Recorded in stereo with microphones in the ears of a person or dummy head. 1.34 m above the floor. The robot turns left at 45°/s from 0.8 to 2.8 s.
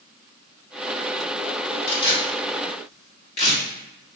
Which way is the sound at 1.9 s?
80° left.